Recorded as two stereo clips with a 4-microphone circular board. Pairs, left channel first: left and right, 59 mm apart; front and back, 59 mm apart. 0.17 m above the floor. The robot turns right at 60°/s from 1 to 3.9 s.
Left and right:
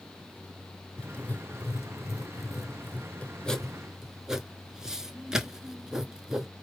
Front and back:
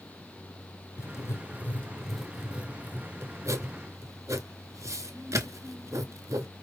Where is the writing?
20° left, 0.7 m; by 6.5 s 170° right, 0.7 m.